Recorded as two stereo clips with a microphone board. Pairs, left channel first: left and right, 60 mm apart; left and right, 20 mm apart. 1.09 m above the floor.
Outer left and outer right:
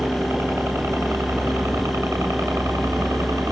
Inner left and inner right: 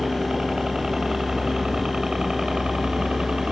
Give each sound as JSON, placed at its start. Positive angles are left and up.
{"t": 0.0, "sound": "a helicopter", "side_deg": -50}